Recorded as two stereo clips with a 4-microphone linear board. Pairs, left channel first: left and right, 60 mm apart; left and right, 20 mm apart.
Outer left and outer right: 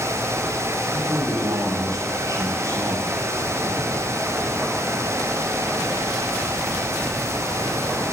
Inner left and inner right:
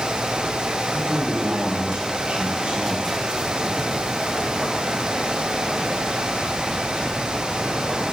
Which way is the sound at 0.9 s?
80° right.